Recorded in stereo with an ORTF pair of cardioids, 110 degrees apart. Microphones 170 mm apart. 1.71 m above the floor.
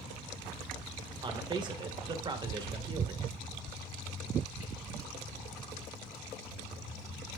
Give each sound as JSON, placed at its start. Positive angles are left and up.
{"t": 1.2, "sound": "a man speaking", "azimuth_deg": -30, "distance_m": 2.5}